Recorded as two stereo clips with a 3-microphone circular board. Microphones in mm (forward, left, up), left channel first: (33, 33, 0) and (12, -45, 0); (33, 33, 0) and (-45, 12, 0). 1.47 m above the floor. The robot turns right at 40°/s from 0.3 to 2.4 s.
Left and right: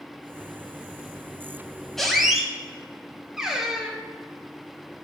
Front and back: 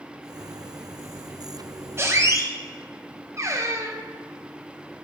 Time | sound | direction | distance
2.0 | a squeak | 160° left | 0.7 m